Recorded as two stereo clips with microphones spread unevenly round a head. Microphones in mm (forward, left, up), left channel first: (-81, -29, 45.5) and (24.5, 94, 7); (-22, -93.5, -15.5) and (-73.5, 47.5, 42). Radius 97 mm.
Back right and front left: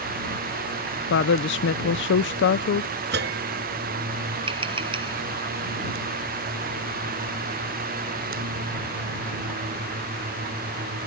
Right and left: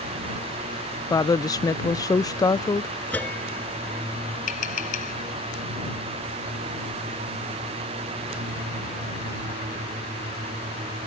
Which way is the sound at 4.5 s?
15° right.